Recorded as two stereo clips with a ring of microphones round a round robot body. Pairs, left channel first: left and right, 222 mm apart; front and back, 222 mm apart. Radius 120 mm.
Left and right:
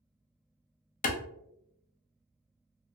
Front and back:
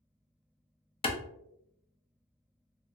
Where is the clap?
55° left, 0.6 m.